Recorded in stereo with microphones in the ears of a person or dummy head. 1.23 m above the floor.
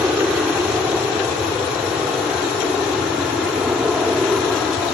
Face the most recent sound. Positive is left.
turn(degrees=0)  # may be behind; listen again after turning